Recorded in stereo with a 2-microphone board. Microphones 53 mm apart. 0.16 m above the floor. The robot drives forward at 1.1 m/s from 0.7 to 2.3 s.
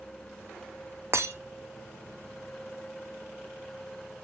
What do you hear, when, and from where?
1.1 s breaking glass: 55° right (ahead or behind), 0.8 m; by 1.4 s 75° right (ahead or behind), 0.7 m